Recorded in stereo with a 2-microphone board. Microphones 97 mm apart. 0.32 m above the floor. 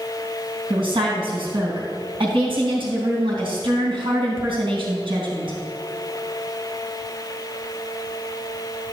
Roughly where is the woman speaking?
Right.